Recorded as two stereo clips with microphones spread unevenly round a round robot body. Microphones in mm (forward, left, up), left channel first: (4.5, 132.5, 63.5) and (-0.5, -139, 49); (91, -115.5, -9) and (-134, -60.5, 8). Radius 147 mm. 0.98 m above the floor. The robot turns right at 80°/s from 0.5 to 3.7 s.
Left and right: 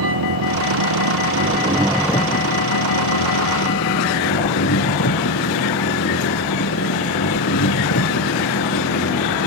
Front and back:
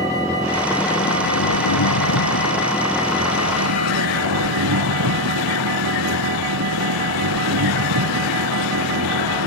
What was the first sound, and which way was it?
An engine running, 120° right.